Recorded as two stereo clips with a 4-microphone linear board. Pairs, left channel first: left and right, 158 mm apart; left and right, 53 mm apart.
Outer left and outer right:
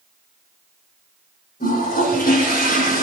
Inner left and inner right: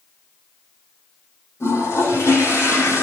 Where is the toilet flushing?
70° left (ahead or behind), 7 m.